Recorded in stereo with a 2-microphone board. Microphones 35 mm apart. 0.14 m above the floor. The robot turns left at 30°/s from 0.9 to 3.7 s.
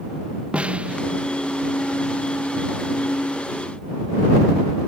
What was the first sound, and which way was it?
A snare drum, 35° right (ahead or behind).